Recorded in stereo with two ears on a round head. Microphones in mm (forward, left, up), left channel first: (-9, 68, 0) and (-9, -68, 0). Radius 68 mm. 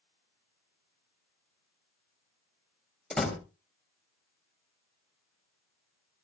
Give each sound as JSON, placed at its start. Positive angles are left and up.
{"t": 3.1, "sound": "a door slam", "side_deg": 5, "distance_m": 3.0}